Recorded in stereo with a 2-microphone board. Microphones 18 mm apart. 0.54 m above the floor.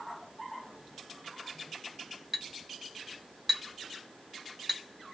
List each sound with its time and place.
2.3 s a clink: 5° right (ahead or behind), 1.4 m